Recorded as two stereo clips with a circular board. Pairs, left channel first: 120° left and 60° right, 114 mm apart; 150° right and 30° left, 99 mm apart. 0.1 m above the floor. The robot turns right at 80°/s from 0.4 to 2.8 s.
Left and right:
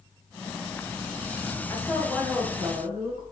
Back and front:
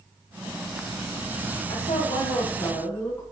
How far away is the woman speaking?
About 7 m.